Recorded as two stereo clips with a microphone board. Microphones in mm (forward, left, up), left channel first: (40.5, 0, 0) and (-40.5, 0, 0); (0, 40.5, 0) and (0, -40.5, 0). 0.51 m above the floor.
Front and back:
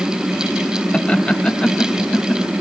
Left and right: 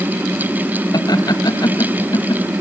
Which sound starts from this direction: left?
Laughter, at 0.9 s.